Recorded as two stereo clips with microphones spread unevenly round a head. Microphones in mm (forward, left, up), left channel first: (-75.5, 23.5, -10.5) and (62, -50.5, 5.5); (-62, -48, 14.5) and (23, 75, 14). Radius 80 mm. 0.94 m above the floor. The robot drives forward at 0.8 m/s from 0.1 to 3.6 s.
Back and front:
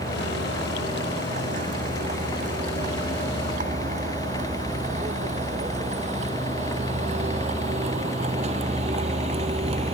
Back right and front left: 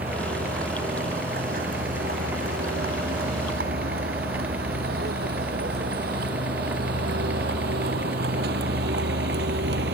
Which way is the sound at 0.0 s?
15° left.